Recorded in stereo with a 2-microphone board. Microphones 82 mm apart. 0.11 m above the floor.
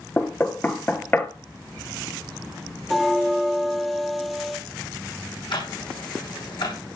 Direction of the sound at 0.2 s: 25° left (ahead or behind).